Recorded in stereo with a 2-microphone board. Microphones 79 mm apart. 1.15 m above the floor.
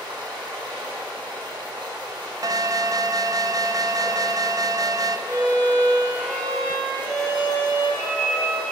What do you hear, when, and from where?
0.0 s running water: 75° right (ahead or behind), 5 m
2.4 s an alarm: 45° right (ahead or behind), 0.6 m
5.3 s a violin: 35° right (ahead or behind), 5 m